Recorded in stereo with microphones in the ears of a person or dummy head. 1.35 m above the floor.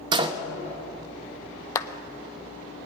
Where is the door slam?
25° right (ahead or behind), 0.9 m.